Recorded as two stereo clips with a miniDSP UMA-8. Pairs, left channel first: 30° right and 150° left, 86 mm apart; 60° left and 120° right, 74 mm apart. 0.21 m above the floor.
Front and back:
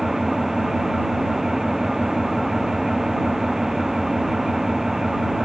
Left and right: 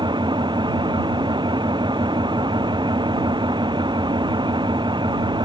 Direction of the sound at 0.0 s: 125° right.